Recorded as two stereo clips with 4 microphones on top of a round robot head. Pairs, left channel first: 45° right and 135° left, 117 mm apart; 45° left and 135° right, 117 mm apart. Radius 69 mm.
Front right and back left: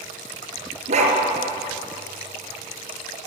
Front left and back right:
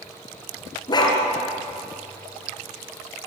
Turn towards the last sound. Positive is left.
turn(degrees=100)